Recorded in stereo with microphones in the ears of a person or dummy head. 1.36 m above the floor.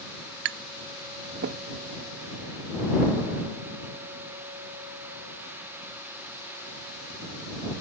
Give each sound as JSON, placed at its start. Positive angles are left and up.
{"t": 0.5, "sound": "tapping", "side_deg": -55}